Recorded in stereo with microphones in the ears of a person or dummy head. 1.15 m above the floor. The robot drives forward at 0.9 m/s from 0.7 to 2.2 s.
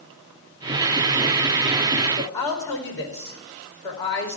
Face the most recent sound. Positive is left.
turn(degrees=25)  # may be behind; listen again after turning